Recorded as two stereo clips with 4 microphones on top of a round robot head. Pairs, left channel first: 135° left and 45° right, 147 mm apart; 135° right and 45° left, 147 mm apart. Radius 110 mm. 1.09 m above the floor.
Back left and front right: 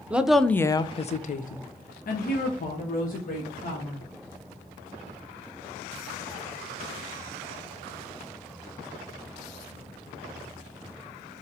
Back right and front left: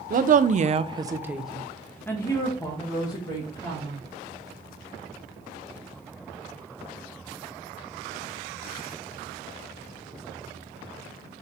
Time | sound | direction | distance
0.1 | a woman speaking | 35° left | 0.6 m